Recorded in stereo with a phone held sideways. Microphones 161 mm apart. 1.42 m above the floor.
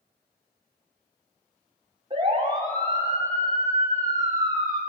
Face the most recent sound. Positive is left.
turn(degrees=-25)  # may be behind; listen again after turning